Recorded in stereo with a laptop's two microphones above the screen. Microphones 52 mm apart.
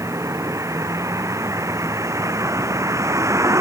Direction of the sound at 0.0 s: 85° right.